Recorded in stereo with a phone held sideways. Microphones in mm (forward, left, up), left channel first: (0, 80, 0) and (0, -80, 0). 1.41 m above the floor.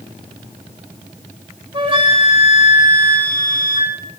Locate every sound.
1.7 s a flute: 35° right (ahead or behind), 3 m